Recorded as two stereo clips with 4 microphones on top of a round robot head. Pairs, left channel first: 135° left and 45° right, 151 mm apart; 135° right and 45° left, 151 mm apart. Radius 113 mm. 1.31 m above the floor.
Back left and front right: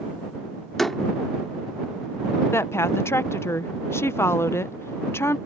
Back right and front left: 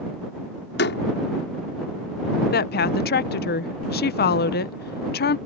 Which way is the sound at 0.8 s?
135° right.